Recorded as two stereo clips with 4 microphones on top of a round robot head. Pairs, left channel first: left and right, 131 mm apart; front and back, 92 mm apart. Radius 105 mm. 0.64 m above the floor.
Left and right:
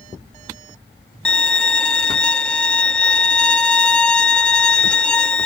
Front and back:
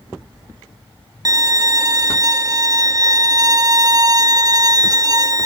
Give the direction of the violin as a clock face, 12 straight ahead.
6 o'clock.